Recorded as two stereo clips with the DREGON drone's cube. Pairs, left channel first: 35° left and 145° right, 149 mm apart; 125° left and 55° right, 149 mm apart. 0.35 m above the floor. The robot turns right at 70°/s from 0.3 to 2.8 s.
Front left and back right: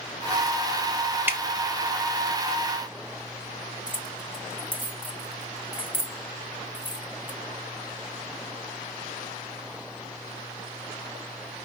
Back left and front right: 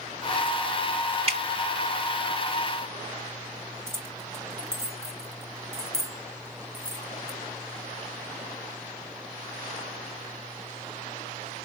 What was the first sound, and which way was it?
Dripping, 75° right.